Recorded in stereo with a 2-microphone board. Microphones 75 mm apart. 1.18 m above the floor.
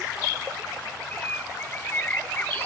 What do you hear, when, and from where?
1.1 s a bird: 25° left (ahead or behind)